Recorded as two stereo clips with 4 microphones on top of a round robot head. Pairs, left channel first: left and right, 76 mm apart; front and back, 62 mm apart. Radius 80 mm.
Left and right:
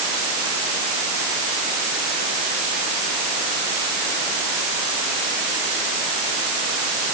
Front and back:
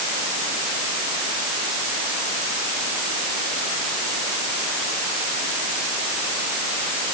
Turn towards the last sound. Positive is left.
No sound to turn to.